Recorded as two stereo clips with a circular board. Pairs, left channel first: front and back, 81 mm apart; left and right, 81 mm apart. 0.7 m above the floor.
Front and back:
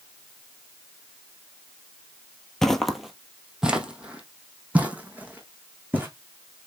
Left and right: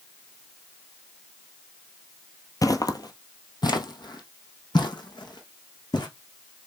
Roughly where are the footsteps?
Left.